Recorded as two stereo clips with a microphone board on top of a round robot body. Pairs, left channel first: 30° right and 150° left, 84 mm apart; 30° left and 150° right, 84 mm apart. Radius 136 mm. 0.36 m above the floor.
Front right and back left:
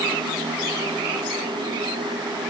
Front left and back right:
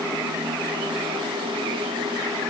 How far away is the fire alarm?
I don't hear a fire alarm.